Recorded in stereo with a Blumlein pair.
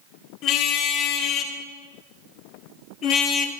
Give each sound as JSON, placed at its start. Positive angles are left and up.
{"t": 0.4, "sound": "a car horn", "azimuth_deg": 35, "distance_m": 3.5}